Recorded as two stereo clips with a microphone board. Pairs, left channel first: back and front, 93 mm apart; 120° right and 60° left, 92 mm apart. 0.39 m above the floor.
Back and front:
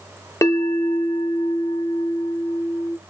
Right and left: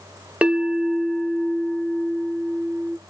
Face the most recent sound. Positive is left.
turn(degrees=135)